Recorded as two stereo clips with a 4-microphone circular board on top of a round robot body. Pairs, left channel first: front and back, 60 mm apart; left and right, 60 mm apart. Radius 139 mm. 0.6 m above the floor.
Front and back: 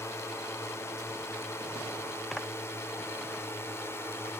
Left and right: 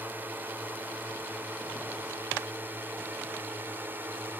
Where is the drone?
35° right; by 4.4 s 40° right.